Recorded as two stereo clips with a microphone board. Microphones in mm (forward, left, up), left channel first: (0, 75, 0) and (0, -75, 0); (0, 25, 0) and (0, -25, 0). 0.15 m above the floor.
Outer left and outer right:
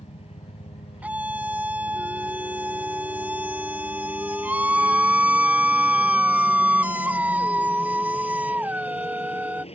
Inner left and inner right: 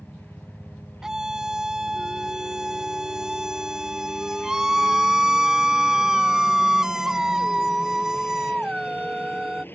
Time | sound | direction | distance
0.0 | a helicopter | 45° left (ahead or behind) | ?
1.0 | a scream | 10° right (ahead or behind) | ?